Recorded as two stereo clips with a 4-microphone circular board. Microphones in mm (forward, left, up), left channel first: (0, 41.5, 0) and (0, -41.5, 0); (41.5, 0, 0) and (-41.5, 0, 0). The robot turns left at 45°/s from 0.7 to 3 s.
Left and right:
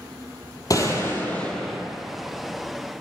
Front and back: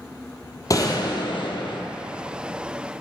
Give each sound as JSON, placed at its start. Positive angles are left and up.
{"t": 0.7, "sound": "a gunshot", "azimuth_deg": 45, "distance_m": 1.0}